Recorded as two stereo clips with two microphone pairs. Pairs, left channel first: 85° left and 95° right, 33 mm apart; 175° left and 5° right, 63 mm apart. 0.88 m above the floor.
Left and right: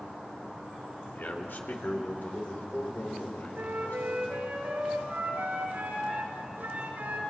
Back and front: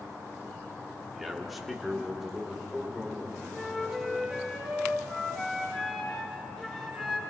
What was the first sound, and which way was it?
A man speaking, 85° left.